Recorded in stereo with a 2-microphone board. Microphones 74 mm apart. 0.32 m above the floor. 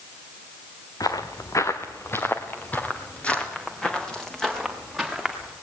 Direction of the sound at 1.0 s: 55° left (ahead or behind).